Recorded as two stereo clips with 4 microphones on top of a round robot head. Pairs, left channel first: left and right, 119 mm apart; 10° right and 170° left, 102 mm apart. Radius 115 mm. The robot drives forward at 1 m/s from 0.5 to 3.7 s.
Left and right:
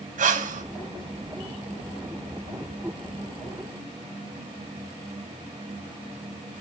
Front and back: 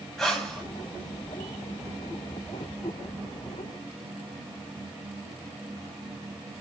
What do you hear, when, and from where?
0.2 s breathing: 100° right, 2.5 m; by 0.6 s 105° right, 2.5 m